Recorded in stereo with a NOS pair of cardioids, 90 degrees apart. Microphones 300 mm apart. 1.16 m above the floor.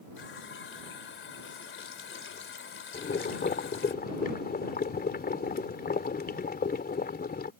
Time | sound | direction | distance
0.2 | a running tap | 40° left | ?
2.9 | boiling | 30° left | ?